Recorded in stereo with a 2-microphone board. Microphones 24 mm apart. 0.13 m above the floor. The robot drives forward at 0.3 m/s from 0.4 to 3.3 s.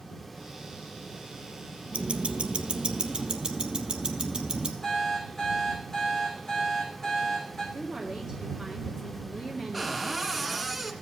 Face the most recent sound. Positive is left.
turn(degrees=-5)  # may be behind; listen again after turning